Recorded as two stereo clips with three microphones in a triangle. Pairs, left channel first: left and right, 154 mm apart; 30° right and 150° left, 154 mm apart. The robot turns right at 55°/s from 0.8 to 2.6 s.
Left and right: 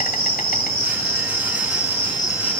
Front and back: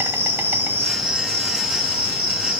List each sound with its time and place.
0.0 s an insect: 75° left, 1.6 m; by 2.6 s 175° left, 1.6 m